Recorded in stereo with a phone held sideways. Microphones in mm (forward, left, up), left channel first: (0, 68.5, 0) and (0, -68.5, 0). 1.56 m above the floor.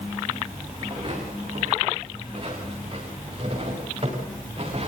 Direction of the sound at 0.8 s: 40° right (ahead or behind).